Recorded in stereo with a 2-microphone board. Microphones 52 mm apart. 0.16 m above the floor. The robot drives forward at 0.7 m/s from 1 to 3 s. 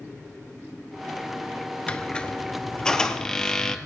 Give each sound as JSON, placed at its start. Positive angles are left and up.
{"t": 1.9, "sound": "a squeak", "side_deg": 20, "distance_m": 0.9}